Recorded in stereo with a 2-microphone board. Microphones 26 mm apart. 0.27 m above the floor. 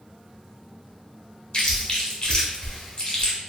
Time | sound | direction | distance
1.5 | chewing | 30° left (ahead or behind) | 1.4 m